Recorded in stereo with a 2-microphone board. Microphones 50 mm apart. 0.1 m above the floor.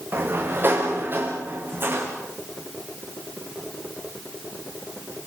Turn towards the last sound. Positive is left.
turn(degrees=-45)  # may be behind; listen again after turning